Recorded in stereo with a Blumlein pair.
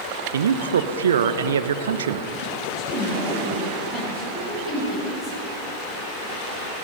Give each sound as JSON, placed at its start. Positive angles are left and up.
{"t": 0.3, "sound": "a man speaking", "azimuth_deg": -65, "distance_m": 0.8}
{"t": 2.6, "sound": "a woman speaking", "azimuth_deg": -5, "distance_m": 6.5}